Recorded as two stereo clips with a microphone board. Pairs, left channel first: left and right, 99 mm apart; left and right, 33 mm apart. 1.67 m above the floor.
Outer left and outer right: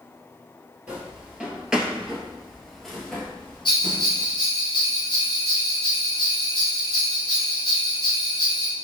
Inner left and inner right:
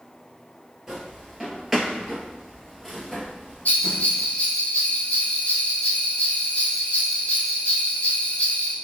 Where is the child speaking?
I don't hear a child speaking.